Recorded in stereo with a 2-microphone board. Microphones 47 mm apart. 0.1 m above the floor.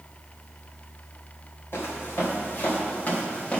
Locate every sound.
1.7 s footsteps: 50° left (ahead or behind), 3 m; by 3.6 s 25° left (ahead or behind), 2.5 m